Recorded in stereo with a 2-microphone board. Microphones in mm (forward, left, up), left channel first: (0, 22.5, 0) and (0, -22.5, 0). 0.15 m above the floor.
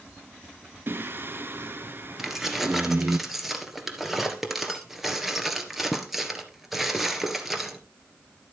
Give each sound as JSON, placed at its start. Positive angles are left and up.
{"t": 0.9, "sound": "singing", "side_deg": -55, "distance_m": 0.7}
{"t": 2.2, "sound": "keys jangling", "side_deg": -5, "distance_m": 1.8}